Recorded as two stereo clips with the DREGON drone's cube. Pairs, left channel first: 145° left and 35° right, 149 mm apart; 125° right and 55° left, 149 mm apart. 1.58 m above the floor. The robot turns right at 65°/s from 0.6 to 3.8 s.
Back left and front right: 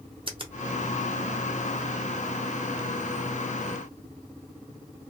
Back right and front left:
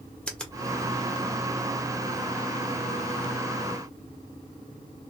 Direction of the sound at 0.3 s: 45° right.